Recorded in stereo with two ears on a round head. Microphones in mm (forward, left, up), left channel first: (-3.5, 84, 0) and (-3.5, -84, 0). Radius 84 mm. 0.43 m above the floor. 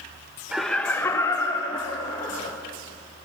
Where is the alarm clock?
No alarm clock in this recording.